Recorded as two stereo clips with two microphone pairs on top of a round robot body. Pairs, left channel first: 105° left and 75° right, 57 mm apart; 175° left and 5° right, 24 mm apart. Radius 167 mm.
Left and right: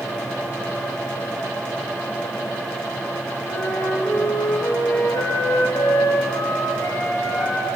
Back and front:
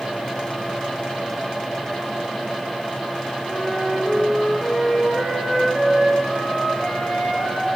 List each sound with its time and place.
3.5 s a flute: 145° left, 5.5 m